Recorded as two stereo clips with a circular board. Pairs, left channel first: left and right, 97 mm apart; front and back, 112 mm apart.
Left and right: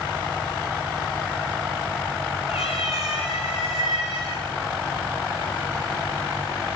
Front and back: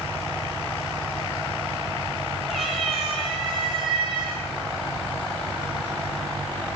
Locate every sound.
2.5 s a cat meowing: 90° left, 8 m; by 6.7 s 85° left, 10 m